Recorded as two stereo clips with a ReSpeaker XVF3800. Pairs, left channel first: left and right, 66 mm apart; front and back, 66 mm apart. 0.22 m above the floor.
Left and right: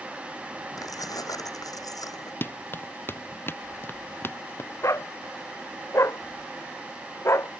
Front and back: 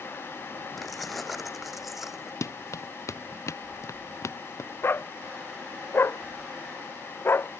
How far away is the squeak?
No squeak in this recording.